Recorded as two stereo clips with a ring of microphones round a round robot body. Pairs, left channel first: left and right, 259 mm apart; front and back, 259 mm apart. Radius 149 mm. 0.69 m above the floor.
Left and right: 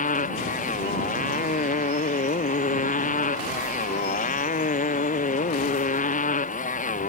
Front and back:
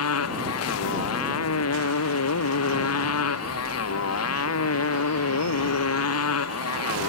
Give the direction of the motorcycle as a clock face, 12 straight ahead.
11 o'clock.